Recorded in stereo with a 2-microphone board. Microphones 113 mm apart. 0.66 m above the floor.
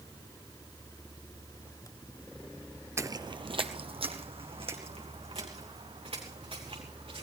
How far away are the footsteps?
About 0.6 m.